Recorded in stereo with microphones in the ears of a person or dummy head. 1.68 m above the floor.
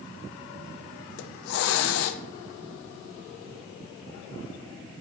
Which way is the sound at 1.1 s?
75° left (ahead or behind).